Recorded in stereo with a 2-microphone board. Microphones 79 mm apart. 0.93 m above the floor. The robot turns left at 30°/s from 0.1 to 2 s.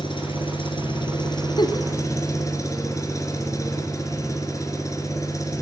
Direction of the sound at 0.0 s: 100° left.